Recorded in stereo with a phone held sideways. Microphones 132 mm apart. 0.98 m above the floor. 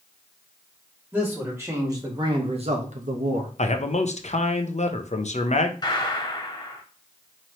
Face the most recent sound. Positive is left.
turn(degrees=30)  # may be behind; listen again after turning